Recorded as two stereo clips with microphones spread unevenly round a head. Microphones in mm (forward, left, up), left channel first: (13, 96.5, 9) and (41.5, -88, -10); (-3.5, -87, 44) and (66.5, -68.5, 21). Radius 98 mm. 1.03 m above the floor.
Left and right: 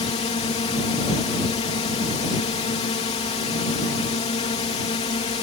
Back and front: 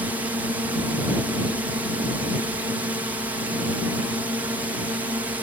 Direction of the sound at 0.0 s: 50° left.